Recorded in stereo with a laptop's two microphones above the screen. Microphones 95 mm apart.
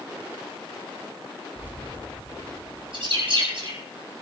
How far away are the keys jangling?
About 4 m.